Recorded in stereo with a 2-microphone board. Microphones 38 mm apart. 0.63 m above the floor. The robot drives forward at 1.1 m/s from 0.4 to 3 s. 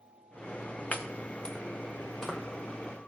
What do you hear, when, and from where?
0.9 s chopping: 45° left (ahead or behind), 0.7 m; by 2.4 s 15° left (ahead or behind), 1.9 m